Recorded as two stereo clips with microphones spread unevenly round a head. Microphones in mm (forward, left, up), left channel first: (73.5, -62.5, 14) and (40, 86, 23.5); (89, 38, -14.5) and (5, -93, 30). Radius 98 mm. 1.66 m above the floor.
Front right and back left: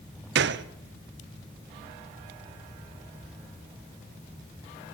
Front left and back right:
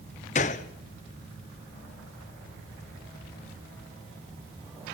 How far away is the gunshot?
About 0.8 m.